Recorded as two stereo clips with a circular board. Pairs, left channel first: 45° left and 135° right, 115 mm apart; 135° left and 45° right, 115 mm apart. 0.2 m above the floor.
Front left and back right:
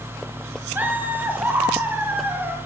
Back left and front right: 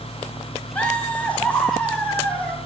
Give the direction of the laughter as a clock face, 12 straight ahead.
6 o'clock.